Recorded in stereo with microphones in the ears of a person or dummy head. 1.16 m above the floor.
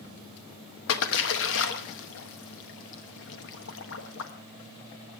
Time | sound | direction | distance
0.9 | a splash | 70° left (ahead or behind) | 1.2 m